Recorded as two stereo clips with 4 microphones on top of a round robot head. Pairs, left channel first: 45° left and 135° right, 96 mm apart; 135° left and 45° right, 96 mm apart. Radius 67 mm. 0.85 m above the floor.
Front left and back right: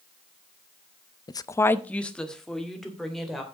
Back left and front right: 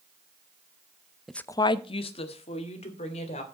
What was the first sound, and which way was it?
A woman speaking, 40° left.